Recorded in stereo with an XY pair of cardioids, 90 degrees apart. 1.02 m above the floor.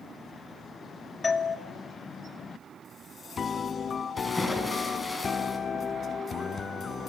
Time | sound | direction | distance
1.2 | a doorbell | 35° left | 2.5 m
4.2 | a splash | 20° left | 7.5 m